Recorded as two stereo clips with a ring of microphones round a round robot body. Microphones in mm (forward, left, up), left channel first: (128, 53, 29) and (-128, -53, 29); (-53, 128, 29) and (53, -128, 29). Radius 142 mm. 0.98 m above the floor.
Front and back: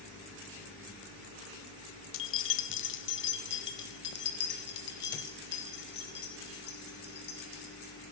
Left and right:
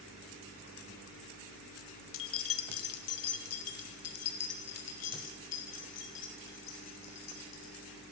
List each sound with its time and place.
2.1 s keys jangling: 70° left, 0.8 m; by 7.9 s 80° left, 4 m